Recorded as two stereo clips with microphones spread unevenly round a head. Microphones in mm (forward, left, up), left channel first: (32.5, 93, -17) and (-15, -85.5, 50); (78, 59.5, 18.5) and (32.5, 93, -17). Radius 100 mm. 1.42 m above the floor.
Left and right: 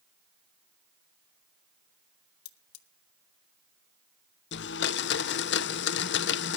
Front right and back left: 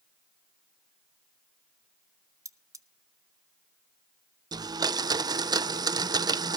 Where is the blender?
115° left, 0.5 m.